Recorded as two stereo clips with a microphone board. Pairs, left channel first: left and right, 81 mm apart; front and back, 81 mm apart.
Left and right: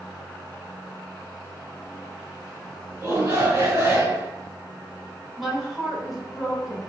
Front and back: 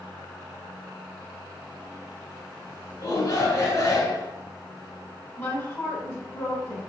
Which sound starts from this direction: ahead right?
A shout, at 3.0 s.